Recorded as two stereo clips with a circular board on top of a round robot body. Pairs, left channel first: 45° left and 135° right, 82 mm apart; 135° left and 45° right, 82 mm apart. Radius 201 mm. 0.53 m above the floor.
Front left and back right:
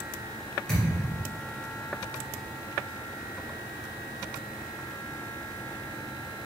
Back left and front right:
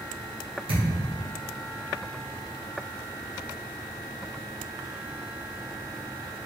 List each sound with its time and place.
0.7 s a thud: 35° right, 1.0 m